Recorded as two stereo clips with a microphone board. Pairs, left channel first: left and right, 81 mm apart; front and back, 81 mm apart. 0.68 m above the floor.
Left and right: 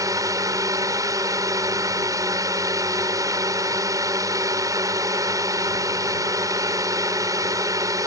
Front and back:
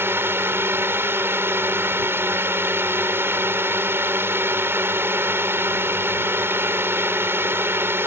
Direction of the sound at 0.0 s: 125° right.